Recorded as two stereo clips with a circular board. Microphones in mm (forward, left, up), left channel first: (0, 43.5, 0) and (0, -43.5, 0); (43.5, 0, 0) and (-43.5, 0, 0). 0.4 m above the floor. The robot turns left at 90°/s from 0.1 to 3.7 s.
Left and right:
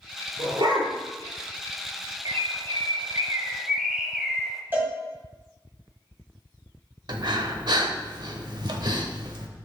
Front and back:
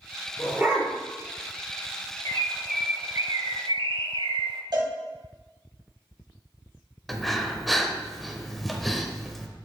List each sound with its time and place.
0.4 s a dog barking: 90° right, 2.5 m; by 0.9 s 135° right, 2.5 m
2.2 s a bird: 45° right, 0.7 m; by 4.6 s 175° right, 0.7 m
4.7 s a cowbell: 155° right, 2 m
7.1 s breathing: 90° right, 0.7 m